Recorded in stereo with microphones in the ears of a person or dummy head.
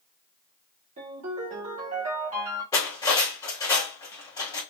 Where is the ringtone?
35° right (ahead or behind), 1.1 m.